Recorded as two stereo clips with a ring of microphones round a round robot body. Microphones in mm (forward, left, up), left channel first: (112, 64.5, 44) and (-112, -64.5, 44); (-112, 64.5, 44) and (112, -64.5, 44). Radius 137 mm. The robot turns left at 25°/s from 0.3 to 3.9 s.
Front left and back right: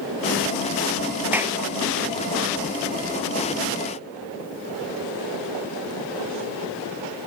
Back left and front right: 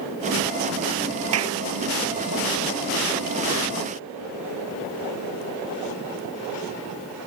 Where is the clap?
65° right; by 1.6 s 70° right.